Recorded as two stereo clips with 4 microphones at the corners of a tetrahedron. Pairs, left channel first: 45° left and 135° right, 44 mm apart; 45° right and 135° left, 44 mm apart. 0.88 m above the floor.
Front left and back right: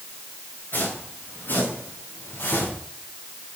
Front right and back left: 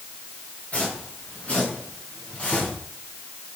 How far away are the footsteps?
About 7 m.